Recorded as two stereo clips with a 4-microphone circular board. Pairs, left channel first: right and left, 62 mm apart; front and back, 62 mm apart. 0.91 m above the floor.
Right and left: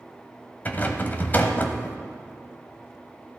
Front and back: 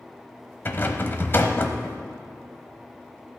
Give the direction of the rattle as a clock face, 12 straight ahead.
1 o'clock.